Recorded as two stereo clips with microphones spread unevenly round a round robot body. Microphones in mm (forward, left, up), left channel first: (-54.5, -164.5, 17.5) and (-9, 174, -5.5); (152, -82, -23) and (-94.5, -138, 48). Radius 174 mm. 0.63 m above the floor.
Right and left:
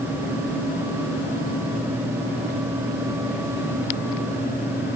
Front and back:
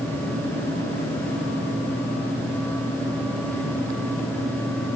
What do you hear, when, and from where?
Only background noise.